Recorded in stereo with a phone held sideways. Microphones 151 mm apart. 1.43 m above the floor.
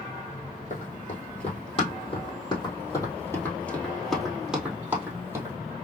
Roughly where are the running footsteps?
Left.